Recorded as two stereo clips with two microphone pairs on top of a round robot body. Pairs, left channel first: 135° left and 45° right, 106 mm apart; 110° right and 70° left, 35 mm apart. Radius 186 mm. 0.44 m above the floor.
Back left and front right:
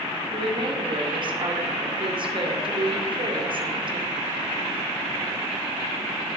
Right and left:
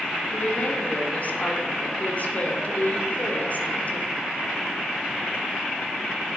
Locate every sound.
0.3 s a woman speaking: 75° right, 2.5 m